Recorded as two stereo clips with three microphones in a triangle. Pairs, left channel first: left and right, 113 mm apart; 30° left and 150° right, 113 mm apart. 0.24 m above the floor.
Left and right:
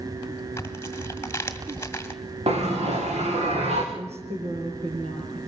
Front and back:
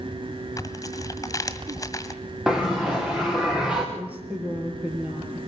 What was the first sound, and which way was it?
Tearing paper, 45° left.